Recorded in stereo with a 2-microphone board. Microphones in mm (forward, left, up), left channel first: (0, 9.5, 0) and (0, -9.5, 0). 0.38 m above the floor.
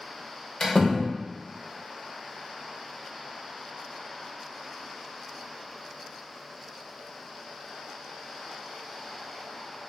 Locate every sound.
0.6 s a door slam: 35° left (ahead or behind), 0.6 m